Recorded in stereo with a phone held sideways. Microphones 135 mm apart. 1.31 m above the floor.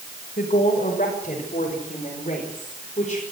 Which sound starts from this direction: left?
A woman speaking, at 0.4 s.